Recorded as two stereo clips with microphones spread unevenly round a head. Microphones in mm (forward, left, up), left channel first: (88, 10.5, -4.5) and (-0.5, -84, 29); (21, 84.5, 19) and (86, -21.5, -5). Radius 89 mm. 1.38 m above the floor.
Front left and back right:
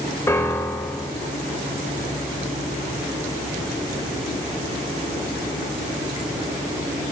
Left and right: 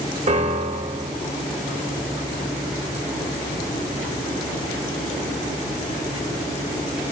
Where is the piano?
25° right, 2.5 m.